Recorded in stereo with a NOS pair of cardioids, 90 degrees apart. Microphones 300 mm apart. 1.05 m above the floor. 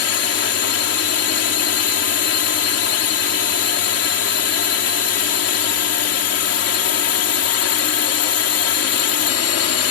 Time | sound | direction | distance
0.0 | a drone | 55° left | ?